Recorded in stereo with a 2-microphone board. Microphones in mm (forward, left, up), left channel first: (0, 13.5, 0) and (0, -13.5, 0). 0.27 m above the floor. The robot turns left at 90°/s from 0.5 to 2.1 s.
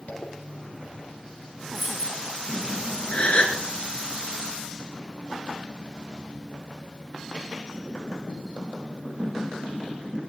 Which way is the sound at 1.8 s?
Straight ahead.